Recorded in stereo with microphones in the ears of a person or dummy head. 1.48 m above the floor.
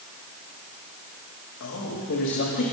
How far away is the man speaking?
About 2.5 m.